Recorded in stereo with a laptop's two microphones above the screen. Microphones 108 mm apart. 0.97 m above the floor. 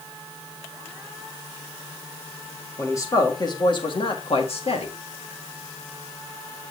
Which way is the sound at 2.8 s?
25° left (ahead or behind).